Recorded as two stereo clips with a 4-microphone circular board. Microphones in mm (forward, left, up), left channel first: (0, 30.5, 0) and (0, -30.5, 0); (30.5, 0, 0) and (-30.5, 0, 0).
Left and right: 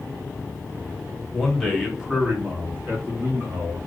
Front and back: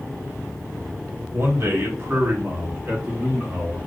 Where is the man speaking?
170° left, 1.1 m; by 3.8 s 105° right, 1.4 m.